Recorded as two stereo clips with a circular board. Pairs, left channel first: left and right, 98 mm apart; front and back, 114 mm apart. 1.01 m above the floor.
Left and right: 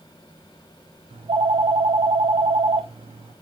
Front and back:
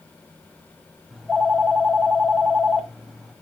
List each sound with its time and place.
1.1 s a phone ringing: 90° right, 0.8 m